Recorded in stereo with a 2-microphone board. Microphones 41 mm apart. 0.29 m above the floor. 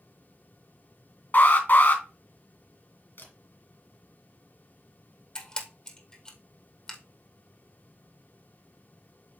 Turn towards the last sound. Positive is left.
turn(degrees=20)  # may be behind; listen again after turning